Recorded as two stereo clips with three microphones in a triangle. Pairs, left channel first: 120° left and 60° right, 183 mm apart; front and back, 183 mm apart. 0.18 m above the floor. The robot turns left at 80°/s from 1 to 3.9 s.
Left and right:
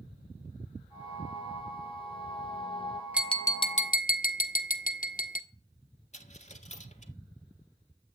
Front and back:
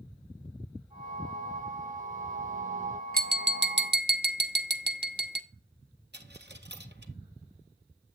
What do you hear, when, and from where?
3.1 s tapping: 140° right, 1.1 m; by 5.4 s 160° left, 1.1 m
6.1 s a dropped coin: 170° left, 1.6 m